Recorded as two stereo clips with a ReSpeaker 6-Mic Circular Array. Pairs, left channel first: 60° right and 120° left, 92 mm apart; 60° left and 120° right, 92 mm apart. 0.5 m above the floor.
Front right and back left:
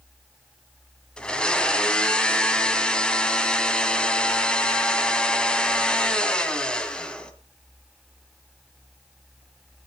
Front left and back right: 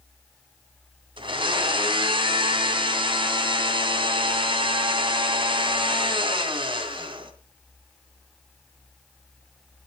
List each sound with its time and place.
1.2 s a blender: 140° right, 2 m